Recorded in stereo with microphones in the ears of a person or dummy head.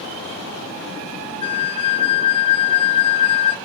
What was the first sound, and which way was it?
A flute, 35° left (ahead or behind).